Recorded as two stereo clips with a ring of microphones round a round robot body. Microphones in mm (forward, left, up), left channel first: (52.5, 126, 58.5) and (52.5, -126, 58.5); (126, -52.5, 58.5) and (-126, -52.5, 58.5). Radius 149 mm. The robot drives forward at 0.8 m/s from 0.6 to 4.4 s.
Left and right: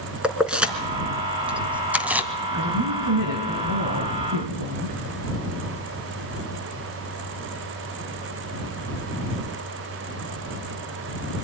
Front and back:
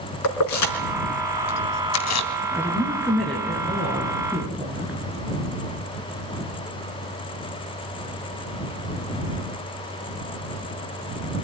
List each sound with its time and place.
0.2 s keys jangling: 5° right, 3 m
2.5 s a woman speaking: 80° right, 6 m; by 5.0 s 95° right, 6 m